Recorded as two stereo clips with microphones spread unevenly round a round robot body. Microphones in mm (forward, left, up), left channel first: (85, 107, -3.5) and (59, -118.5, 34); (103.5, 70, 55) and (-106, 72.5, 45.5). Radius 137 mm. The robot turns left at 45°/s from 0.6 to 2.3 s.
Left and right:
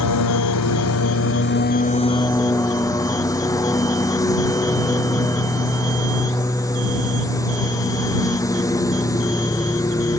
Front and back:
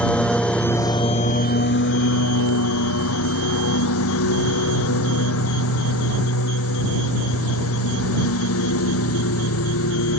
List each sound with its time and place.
0.0 s a lawn mower: 85° left; by 10.2 s 5° left